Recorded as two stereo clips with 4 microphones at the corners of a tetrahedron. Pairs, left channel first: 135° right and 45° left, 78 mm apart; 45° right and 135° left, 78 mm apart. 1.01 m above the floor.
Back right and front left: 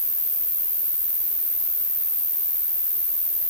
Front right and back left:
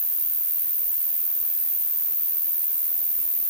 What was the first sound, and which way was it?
An insect, 150° left.